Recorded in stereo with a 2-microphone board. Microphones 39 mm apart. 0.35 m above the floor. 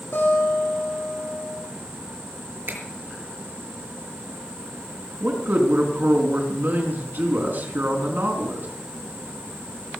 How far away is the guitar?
About 8 m.